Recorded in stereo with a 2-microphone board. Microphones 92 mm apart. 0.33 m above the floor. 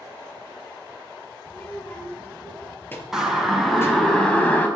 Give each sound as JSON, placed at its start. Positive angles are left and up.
{"t": 1.5, "sound": "a child speaking", "side_deg": 20, "distance_m": 5.5}
{"t": 3.1, "sound": "a siren", "side_deg": -5, "distance_m": 4.0}